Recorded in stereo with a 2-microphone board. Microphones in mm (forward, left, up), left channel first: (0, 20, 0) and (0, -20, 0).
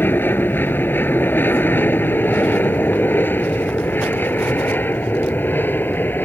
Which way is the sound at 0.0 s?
65° left (ahead or behind).